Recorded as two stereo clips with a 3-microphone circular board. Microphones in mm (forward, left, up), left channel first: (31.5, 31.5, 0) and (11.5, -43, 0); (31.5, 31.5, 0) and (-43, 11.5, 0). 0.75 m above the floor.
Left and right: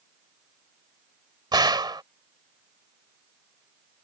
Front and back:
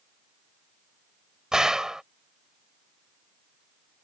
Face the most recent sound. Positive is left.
turn(degrees=-85)